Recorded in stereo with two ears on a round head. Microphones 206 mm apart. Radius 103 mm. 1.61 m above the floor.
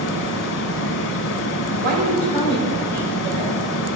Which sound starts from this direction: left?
Running water, at 0.0 s.